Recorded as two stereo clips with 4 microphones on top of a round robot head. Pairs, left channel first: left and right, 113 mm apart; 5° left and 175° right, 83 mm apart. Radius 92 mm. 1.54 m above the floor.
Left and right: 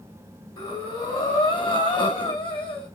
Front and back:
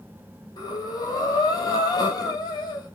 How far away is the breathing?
About 3 m.